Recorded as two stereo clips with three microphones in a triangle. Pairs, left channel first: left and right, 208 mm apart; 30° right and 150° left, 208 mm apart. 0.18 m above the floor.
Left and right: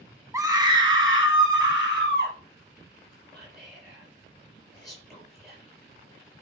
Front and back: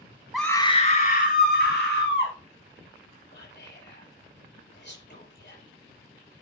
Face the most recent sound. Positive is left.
turn(degrees=0)